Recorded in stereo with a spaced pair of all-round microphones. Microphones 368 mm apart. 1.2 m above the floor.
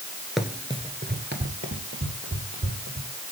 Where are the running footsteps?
Centre (ahead or behind), 1.3 m; by 3.1 s 35° right (ahead or behind), 3.5 m.